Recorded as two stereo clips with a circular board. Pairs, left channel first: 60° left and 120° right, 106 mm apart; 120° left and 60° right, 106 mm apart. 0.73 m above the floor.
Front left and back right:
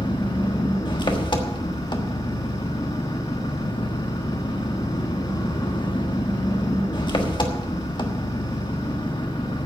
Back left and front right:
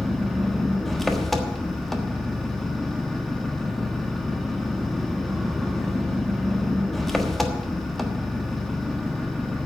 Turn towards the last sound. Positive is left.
turn(degrees=35)